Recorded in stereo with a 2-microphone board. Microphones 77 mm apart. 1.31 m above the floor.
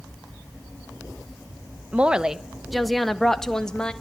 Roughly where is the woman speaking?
Centre.